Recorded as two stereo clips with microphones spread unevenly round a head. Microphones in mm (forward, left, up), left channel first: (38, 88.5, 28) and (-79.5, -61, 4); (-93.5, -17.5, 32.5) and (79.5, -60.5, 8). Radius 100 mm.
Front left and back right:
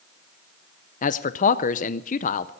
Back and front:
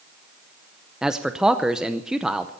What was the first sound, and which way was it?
A man speaking, 80° left.